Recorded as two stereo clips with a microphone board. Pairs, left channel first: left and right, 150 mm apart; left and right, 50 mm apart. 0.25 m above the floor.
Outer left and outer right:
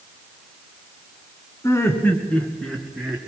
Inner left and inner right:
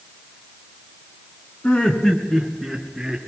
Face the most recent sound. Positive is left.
turn(degrees=0)  # may be behind; listen again after turning